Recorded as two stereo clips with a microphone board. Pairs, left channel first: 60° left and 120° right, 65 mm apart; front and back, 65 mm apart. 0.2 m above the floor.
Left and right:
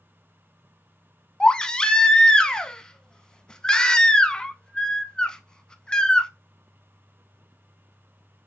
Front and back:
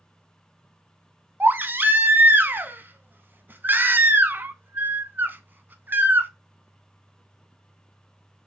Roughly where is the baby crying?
Behind left.